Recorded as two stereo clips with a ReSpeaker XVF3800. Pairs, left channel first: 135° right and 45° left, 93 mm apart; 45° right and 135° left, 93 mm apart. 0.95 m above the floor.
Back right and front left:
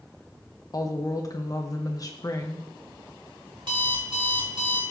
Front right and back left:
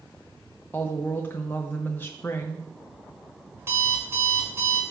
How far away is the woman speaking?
About 0.6 m.